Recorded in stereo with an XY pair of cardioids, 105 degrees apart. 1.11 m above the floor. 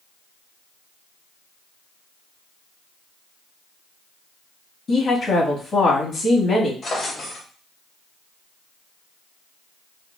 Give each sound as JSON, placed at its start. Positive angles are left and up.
{"t": 4.9, "sound": "a woman speaking", "azimuth_deg": 40, "distance_m": 1.7}
{"t": 6.8, "sound": "a drawer", "azimuth_deg": 35, "distance_m": 1.8}